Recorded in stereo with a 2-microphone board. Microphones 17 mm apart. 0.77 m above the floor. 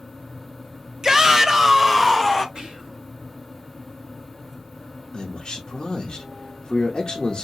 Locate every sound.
1.0 s a shout: 35° right (ahead or behind), 0.7 m; by 2.5 s centre (ahead or behind), 0.7 m
2.5 s whispering: 65° right (ahead or behind), 1.6 m
5.1 s a man speaking: 45° left (ahead or behind), 0.8 m